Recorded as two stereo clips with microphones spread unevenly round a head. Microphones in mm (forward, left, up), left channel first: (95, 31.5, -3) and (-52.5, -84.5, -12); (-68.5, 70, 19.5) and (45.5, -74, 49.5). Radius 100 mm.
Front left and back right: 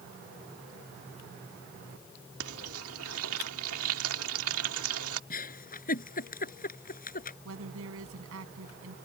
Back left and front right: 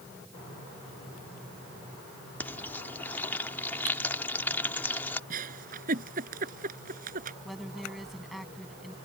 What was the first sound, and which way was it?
Frying, 150° right.